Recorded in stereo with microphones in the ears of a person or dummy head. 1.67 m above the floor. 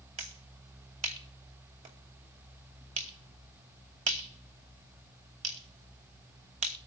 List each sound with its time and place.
0.2 s a finger snap: 40° right (ahead or behind), 2.5 m